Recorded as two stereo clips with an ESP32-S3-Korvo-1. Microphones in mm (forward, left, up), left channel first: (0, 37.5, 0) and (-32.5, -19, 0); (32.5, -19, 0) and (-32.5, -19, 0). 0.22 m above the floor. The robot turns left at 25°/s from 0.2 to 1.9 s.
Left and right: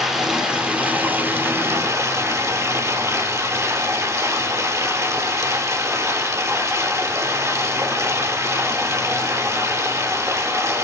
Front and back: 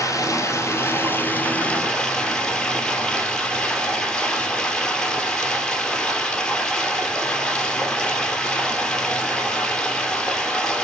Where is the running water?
40° right, 2.5 m; by 10.9 s 80° right, 2.5 m.